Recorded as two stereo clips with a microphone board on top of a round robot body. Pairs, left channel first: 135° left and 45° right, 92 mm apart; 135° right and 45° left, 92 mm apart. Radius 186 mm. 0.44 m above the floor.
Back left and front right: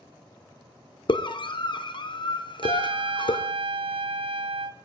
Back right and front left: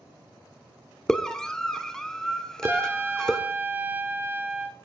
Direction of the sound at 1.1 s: 145° left.